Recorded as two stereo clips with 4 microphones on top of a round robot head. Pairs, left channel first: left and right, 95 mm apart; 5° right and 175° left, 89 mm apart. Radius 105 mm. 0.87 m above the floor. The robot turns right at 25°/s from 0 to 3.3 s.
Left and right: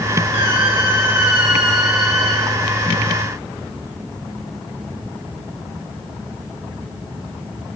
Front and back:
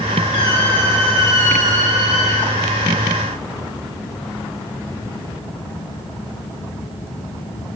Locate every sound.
0.3 s a squeak: 40° right, 2.5 m; by 2.5 s 15° left, 2.5 m